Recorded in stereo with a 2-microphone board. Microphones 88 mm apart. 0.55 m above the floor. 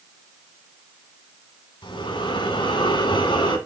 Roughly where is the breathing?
Left.